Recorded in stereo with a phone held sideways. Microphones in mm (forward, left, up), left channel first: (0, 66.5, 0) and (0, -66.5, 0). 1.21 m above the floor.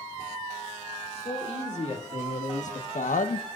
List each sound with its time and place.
1.1 s a man speaking: 55° left (ahead or behind), 3.5 m; by 3.6 s 60° left (ahead or behind), 0.5 m